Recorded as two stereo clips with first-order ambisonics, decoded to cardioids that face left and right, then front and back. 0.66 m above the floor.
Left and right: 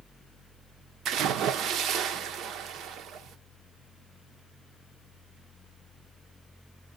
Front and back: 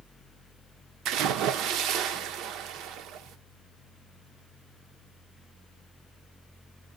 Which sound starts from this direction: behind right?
A splash, at 1.1 s.